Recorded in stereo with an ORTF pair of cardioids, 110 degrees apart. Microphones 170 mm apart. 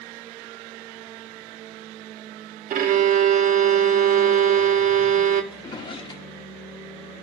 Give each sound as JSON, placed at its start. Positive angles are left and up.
{"t": 2.7, "sound": "a violin", "azimuth_deg": -60, "distance_m": 1.2}
{"t": 5.5, "sound": "a drawer", "azimuth_deg": 30, "distance_m": 1.2}